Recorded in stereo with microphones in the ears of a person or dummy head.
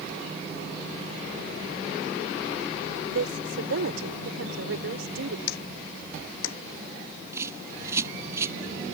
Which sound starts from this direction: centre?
A bird, at 7.3 s.